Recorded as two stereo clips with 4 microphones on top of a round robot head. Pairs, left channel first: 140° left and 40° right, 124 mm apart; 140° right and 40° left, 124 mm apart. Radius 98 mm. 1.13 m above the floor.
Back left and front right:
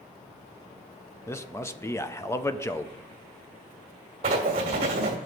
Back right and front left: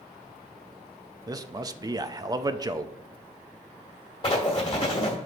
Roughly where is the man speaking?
Left.